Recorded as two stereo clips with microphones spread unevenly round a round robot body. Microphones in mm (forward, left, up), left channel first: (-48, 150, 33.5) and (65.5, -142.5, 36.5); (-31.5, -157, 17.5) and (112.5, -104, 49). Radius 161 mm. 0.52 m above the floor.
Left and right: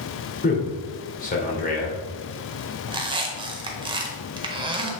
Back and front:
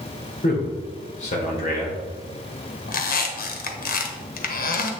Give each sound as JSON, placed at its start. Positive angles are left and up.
{"t": 0.4, "sound": "a man speaking", "azimuth_deg": 170, "distance_m": 2.0}
{"t": 2.9, "sound": "a squeak", "azimuth_deg": -145, "distance_m": 1.0}